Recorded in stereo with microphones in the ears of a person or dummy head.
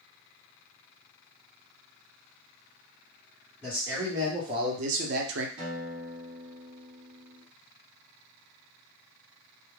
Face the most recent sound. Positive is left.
turn(degrees=-25)  # may be behind; listen again after turning